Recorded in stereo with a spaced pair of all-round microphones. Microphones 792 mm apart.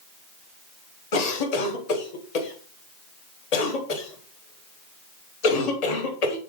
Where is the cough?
55° left (ahead or behind), 0.7 m.